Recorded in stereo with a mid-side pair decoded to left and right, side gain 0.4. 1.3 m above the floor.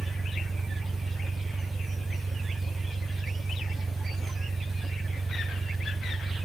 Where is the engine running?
40° right.